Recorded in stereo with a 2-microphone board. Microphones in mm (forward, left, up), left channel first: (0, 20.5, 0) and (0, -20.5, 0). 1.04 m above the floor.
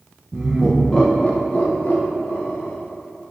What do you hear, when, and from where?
0.3 s laughter: 25° right (ahead or behind), 0.8 m; by 2.8 s 65° left (ahead or behind), 2.5 m